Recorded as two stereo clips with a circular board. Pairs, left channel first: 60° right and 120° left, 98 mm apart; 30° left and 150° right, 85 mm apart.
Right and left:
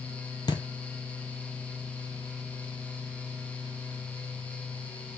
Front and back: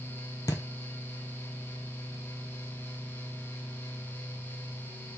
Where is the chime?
No chime in this recording.